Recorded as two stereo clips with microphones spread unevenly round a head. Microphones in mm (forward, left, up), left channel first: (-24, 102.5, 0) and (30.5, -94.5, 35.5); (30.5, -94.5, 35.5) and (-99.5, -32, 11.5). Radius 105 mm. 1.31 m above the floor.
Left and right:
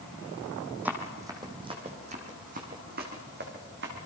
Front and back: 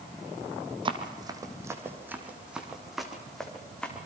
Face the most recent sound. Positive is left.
turn(degrees=-105)